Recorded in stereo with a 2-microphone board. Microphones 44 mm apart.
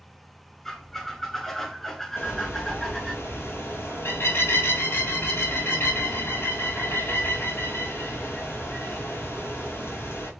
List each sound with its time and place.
0.7 s a squeak: 10° left (ahead or behind), 0.8 m
2.2 s a bird: 65° left (ahead or behind), 1.6 m